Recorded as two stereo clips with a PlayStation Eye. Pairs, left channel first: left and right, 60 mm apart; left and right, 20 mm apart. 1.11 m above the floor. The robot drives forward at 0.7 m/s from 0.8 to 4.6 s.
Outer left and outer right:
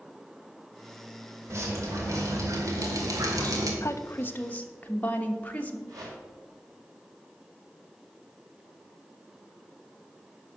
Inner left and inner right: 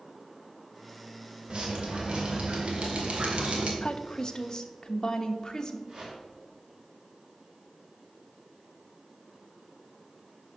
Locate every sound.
1.5 s dripping: 45° right (ahead or behind), 2.5 m; by 3.7 s 75° right (ahead or behind), 1.7 m
3.8 s a woman speaking: 55° left (ahead or behind), 0.5 m; by 5.8 s 25° left (ahead or behind), 0.9 m
5.9 s a whoosh: 75° right (ahead or behind), 4 m